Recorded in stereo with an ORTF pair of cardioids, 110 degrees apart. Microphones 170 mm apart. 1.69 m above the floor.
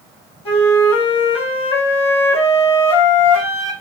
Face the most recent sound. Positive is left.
turn(degrees=35)